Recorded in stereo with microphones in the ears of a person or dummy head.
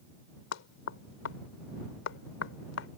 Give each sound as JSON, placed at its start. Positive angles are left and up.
{"t": 0.5, "sound": "knocking", "side_deg": 75}